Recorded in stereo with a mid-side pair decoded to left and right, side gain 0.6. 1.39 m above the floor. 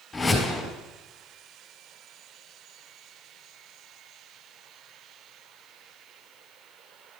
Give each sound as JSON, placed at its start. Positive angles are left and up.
{"t": 0.1, "sound": "a whoosh", "azimuth_deg": 10, "distance_m": 4.0}